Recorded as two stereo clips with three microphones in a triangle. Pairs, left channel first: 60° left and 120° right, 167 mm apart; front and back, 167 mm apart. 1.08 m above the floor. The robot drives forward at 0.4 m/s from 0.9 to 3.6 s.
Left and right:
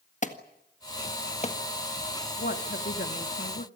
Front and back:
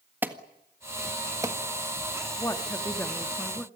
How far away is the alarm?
About 1.7 m.